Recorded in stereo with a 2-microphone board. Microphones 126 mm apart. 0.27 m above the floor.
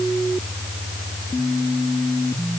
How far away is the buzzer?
I don't hear a buzzer.